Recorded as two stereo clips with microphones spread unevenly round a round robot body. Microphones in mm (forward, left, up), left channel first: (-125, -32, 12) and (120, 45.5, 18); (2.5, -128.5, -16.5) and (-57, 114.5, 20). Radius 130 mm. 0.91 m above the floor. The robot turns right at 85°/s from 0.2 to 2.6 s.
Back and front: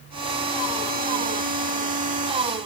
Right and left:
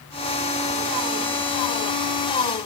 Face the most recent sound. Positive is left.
No sound to turn to.